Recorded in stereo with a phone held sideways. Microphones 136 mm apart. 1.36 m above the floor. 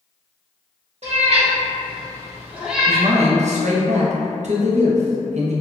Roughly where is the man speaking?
Right.